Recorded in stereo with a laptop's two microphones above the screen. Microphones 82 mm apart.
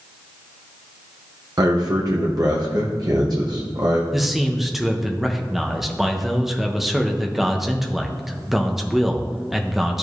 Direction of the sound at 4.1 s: 5° right (ahead or behind).